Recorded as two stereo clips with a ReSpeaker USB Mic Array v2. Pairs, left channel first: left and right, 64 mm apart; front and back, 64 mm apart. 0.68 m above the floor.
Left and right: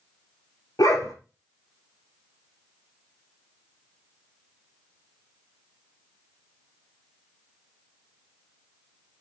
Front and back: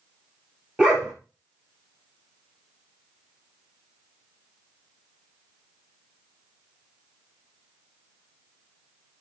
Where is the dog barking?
105° left, 4 m.